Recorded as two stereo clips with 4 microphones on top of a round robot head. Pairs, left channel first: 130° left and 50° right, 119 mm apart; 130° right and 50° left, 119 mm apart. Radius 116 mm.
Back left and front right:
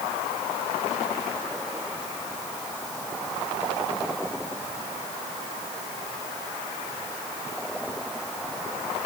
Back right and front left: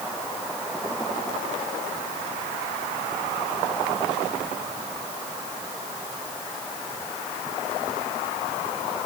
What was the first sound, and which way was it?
Only background noise.